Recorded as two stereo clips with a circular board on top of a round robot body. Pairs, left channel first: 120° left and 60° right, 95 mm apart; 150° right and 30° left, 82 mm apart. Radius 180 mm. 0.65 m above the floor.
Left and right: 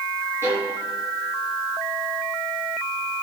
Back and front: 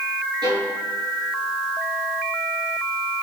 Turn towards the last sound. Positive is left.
turn(degrees=0)